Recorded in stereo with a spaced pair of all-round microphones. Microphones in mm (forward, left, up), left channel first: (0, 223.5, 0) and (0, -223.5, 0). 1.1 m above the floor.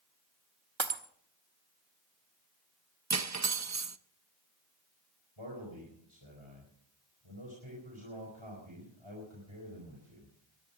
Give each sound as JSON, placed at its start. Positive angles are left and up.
{"t": 0.8, "sound": "breaking glass", "side_deg": -70, "distance_m": 1.3}
{"t": 3.1, "sound": "cutlery clinking", "side_deg": -35, "distance_m": 0.5}
{"t": 5.4, "sound": "a man speaking", "side_deg": -80, "distance_m": 4.5}